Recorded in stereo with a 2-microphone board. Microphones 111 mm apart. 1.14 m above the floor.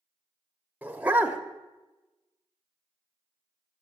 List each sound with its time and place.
0.8 s a dog barking: 15° right (ahead or behind), 0.8 m